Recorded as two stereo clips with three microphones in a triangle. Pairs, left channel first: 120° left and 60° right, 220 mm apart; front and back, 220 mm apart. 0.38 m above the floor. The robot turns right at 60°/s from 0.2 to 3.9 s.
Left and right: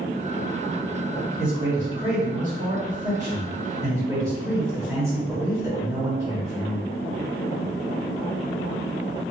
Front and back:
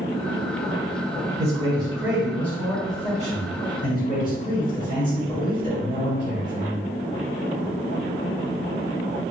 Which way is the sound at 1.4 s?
145° right.